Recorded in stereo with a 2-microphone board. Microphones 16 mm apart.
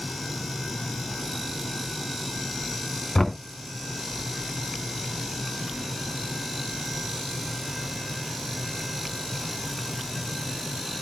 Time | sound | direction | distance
3.1 | knocking | 30° left (ahead or behind) | 0.9 m